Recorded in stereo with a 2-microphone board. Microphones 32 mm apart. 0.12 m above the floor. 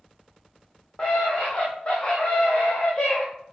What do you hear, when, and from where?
1.0 s a scream: 25° left (ahead or behind), 4.5 m; by 3.2 s 30° left (ahead or behind), 5.5 m